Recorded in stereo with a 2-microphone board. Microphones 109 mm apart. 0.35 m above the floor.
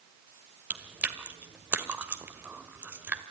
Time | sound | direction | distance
0.7 | chewing | 15° right (ahead or behind) | 1.6 m